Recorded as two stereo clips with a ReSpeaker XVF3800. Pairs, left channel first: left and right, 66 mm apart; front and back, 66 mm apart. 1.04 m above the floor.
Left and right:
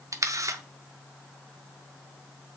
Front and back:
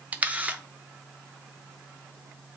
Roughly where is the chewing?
I don't hear chewing.